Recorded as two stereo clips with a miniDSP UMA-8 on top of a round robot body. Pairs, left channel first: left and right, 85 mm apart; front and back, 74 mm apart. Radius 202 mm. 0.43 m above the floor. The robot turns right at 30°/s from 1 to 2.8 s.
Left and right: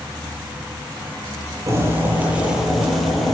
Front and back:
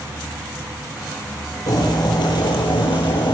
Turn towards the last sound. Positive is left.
turn(degrees=0)